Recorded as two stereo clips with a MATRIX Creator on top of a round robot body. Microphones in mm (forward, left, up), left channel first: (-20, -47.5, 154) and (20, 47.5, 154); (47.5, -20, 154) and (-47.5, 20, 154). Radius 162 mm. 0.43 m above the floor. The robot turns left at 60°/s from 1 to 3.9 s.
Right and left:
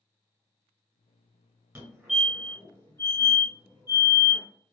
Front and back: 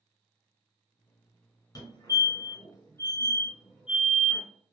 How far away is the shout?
I don't hear a shout.